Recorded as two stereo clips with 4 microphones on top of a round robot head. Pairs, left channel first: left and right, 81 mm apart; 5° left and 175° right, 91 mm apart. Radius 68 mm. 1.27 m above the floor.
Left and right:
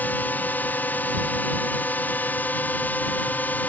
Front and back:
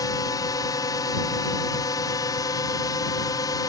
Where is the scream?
No scream in this recording.